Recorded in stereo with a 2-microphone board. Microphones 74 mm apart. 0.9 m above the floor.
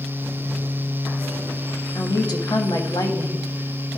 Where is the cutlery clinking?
No cutlery clinking in this recording.